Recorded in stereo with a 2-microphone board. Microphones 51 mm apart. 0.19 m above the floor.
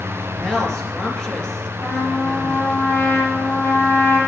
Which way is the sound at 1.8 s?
70° left (ahead or behind).